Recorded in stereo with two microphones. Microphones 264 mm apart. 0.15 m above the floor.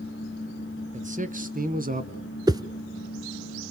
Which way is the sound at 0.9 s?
25° right (ahead or behind).